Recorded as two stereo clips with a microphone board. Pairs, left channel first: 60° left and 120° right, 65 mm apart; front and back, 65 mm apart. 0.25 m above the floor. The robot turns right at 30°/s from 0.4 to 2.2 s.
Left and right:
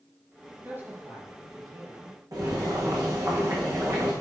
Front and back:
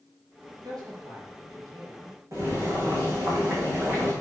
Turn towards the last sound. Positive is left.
turn(degrees=-145)